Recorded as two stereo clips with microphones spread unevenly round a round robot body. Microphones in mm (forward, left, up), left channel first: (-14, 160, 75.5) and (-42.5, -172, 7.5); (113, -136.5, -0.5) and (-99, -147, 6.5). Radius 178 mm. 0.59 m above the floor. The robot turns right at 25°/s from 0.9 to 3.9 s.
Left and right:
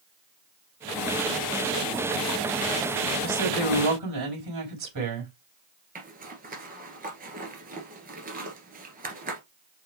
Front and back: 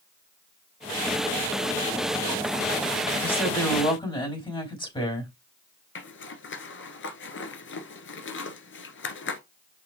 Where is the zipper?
25° right, 1.7 m.